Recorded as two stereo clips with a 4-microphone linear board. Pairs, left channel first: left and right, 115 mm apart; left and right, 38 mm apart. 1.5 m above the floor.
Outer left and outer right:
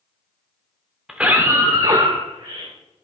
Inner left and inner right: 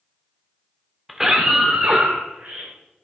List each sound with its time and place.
1.1 s a scream: 5° right (ahead or behind), 0.9 m; by 2.7 s 70° right (ahead or behind), 1.5 m